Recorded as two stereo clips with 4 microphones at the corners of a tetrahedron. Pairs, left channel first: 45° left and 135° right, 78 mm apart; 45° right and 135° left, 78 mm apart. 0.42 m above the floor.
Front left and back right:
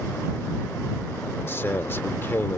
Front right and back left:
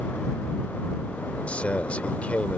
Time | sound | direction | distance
1.5 | a man speaking | 10° left | ?